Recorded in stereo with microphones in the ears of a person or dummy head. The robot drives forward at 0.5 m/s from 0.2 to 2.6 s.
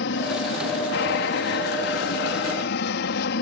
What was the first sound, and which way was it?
An aircraft, 60° left (ahead or behind).